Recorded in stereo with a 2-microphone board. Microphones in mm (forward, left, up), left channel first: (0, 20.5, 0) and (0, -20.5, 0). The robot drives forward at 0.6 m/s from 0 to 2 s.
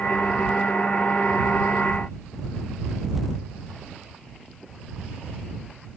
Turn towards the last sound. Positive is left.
No sound to turn to.